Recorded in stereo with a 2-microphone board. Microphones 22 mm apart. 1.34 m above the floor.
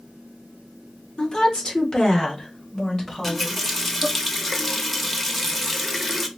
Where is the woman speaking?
40° left (ahead or behind), 1.2 m; by 4.1 s 30° left (ahead or behind), 3 m.